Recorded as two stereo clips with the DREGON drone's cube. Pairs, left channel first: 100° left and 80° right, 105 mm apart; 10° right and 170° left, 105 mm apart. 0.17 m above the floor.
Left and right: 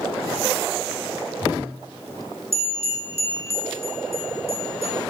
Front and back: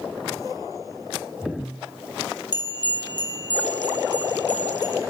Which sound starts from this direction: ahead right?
A bell, at 2.5 s.